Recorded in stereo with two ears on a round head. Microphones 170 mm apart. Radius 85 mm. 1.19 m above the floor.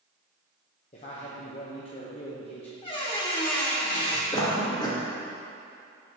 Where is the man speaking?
35° left (ahead or behind), 0.8 m.